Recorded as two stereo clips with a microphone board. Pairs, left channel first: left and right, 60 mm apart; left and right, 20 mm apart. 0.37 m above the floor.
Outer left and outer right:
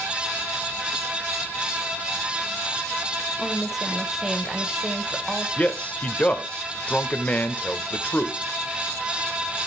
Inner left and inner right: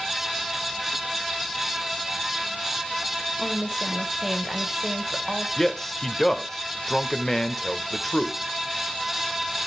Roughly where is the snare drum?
I don't hear a snare drum.